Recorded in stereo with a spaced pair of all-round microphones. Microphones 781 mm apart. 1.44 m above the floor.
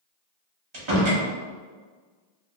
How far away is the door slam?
About 0.8 m.